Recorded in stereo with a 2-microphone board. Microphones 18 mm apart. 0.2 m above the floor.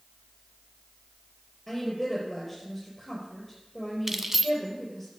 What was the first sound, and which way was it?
A woman speaking, centre (ahead or behind).